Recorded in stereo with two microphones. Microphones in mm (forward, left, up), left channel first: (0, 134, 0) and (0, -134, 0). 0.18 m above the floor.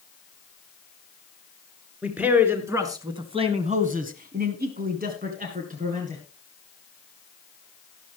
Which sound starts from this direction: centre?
A man speaking, at 2.0 s.